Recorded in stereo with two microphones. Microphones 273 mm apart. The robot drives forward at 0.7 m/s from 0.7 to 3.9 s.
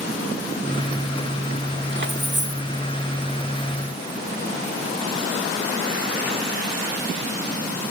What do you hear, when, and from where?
1.9 s keys jangling: 45° right (ahead or behind), 0.9 m; by 2.6 s 40° right (ahead or behind), 1.0 m